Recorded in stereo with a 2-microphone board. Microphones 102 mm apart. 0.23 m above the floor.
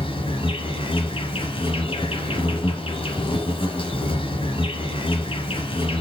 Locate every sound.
0.0 s an insect: 60° left (ahead or behind), 3 m